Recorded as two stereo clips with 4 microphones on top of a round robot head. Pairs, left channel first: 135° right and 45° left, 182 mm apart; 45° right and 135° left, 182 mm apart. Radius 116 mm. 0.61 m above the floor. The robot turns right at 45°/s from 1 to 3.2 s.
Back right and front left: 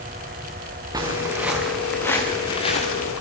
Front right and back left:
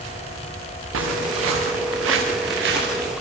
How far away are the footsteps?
About 5 m.